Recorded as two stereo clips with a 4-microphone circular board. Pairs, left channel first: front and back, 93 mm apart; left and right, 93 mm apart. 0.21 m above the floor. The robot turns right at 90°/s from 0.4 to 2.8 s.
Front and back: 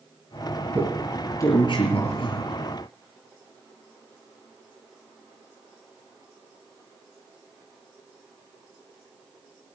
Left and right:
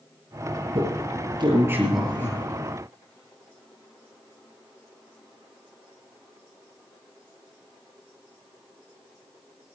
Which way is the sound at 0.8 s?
110° right.